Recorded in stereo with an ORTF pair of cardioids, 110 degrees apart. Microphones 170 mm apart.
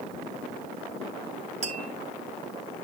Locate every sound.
1.6 s tapping: 40° right, 2.5 m